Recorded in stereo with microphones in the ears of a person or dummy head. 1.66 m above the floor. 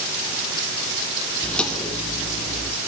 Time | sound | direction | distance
1.4 | footsteps | 5° left (ahead or behind) | 4.5 m